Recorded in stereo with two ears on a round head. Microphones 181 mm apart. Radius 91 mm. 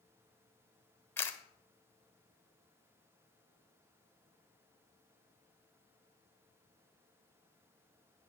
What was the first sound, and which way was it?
A camera shutter, 10° left (ahead or behind).